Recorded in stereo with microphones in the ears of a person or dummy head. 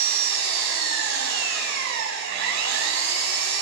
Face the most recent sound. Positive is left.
turn(degrees=-65)  # may be behind; listen again after turning